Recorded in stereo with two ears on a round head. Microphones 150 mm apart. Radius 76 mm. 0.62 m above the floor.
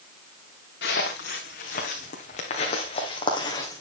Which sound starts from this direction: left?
Footsteps, at 0.8 s.